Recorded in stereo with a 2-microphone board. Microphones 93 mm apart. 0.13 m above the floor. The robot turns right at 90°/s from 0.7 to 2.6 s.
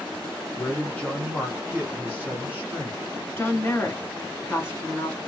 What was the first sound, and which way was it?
A man speaking, 15° left (ahead or behind).